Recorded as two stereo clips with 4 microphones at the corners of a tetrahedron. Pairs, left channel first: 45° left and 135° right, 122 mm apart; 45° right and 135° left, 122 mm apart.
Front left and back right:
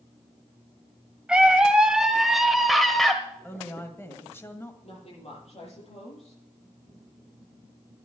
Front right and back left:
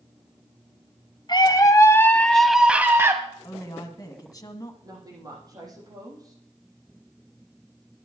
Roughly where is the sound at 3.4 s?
Ahead.